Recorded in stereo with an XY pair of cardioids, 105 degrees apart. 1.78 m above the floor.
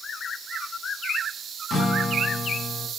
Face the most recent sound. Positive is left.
turn(degrees=40)